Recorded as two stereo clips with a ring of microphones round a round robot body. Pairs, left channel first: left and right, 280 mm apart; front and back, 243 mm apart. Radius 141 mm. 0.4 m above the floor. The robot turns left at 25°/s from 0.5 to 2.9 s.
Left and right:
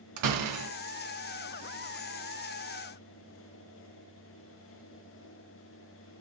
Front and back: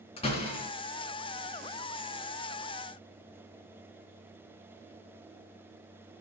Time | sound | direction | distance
0.2 | a door slam | 70° right | 3 m